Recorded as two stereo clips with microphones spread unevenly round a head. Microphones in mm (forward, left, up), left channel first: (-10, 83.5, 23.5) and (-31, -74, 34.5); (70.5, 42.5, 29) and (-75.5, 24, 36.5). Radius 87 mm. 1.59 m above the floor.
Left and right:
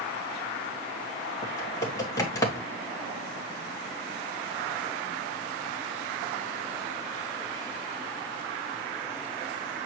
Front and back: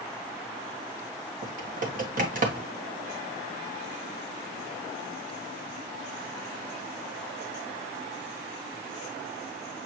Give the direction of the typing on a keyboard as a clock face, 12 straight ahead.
7 o'clock.